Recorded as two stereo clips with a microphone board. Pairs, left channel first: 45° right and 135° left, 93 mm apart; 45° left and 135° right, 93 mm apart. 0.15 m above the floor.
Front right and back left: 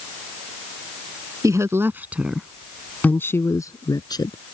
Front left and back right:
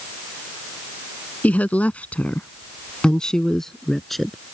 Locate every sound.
1.4 s a woman speaking: 110° left; by 4.4 s 45° right